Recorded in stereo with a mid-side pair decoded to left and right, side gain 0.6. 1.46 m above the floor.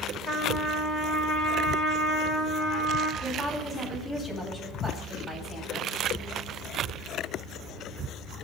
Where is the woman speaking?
5° left, 9 m.